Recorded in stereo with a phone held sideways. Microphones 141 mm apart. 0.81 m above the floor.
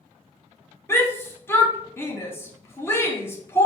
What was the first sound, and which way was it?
A shout, 15° left (ahead or behind).